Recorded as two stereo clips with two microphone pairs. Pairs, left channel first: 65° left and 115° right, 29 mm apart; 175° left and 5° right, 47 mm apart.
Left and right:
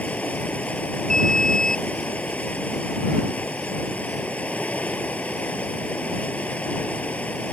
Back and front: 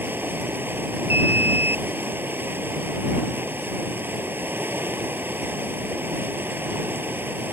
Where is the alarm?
Straight ahead.